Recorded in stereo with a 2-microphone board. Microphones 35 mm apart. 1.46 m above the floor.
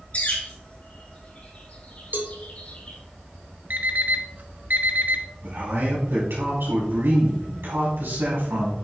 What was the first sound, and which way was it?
A bird, 40° left (ahead or behind).